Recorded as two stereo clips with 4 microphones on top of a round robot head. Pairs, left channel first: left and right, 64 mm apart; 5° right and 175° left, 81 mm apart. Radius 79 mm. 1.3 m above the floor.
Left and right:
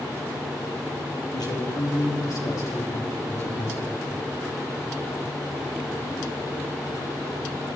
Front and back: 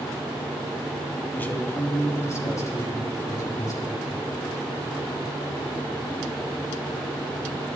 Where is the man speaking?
65° left, 3 m; by 4.0 s 40° left, 5.5 m.